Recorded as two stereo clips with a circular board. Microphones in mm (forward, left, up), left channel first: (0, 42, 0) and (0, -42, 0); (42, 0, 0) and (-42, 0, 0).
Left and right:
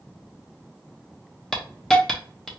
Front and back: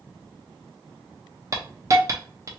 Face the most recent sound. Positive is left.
turn(degrees=170)